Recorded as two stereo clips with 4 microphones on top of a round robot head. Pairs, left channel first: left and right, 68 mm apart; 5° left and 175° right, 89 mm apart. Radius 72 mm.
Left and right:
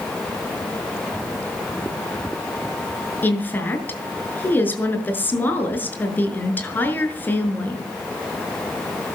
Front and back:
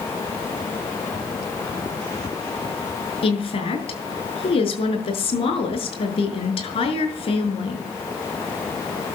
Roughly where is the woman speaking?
Ahead left.